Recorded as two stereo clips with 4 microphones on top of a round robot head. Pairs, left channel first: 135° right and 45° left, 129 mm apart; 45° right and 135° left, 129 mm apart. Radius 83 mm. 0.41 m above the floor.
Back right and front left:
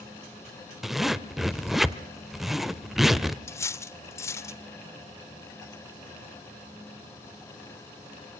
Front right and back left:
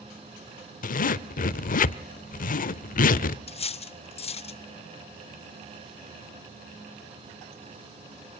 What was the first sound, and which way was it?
A zipper, 40° right.